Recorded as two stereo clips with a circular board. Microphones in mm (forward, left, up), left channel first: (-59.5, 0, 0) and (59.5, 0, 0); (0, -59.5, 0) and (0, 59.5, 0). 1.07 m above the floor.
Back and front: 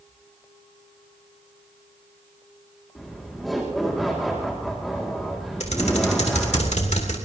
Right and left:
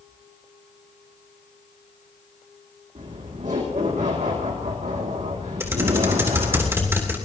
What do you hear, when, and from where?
3.0 s laughter: 90° left, 2 m
5.6 s typing on a keyboard: 160° left, 3 m